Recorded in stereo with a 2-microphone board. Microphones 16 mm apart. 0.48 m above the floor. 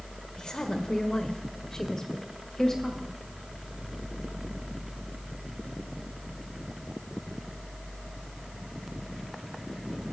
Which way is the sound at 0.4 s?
55° left (ahead or behind).